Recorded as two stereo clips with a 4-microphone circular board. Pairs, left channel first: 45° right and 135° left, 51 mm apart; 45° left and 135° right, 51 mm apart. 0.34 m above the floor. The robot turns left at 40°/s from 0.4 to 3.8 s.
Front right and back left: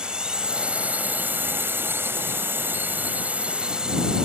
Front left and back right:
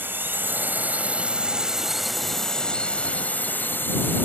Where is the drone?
155° right; by 4.2 s 70° left.